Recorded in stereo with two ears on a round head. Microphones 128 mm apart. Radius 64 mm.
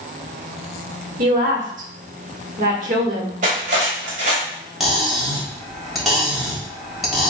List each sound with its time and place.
1.2 s a woman speaking: 60° right (ahead or behind), 1.4 m
3.4 s cutlery clinking: 55° right (ahead or behind), 1.7 m
4.8 s cutlery clinking: centre (ahead or behind), 1.7 m